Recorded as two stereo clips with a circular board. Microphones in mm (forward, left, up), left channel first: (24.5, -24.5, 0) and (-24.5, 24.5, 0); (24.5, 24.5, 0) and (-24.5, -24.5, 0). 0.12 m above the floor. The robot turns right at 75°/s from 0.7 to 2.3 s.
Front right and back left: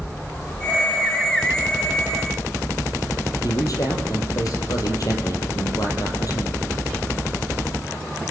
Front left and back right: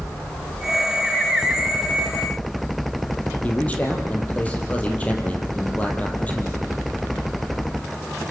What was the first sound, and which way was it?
A man speaking, 20° right.